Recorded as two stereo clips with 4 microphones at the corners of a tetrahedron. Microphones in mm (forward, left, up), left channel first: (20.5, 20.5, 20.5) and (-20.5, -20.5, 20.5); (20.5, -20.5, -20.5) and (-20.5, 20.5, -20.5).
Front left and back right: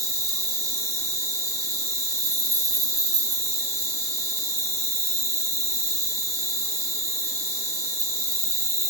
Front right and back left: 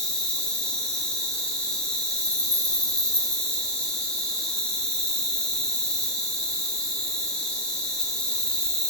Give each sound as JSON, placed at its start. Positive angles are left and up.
{"t": 0.0, "sound": "an insect", "azimuth_deg": -125, "distance_m": 0.7}